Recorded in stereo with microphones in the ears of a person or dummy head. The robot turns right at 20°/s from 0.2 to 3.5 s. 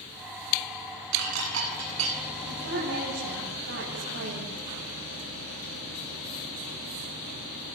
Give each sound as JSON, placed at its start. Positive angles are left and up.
{"t": 1.1, "sound": "dishes clattering", "side_deg": -70, "distance_m": 9.0}
{"t": 2.5, "sound": "a woman speaking", "side_deg": -55, "distance_m": 9.5}